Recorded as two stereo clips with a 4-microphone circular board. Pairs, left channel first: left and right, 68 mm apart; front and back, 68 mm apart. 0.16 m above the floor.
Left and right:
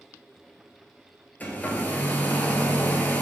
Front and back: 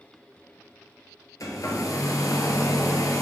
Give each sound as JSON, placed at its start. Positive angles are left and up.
{"t": 1.4, "sound": "a hair dryer", "azimuth_deg": 25, "distance_m": 1.0}